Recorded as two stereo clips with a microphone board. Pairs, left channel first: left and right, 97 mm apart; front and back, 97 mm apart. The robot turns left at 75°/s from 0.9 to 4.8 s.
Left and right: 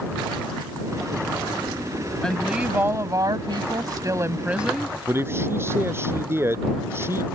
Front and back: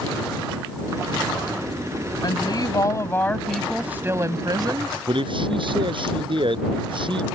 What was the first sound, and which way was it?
A woman speaking, 10° left.